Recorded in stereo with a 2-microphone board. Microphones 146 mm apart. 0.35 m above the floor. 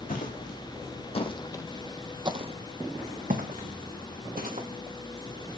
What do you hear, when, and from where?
0.1 s footsteps: 65° left (ahead or behind), 1.3 m; by 4.7 s 80° right, 1.8 m